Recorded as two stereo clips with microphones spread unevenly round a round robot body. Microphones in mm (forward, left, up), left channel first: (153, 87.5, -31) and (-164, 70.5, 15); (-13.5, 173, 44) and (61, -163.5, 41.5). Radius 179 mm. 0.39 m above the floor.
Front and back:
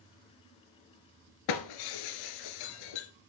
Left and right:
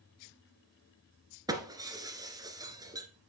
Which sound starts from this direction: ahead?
Breaking glass, at 1.5 s.